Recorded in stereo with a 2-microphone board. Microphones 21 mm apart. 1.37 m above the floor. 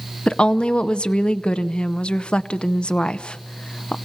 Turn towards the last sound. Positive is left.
turn(degrees=55)  # may be behind; listen again after turning